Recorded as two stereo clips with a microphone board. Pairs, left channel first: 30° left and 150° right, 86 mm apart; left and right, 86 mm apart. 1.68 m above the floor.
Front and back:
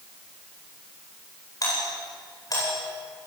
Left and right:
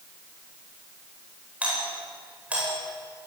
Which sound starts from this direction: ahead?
A doorbell, at 1.6 s.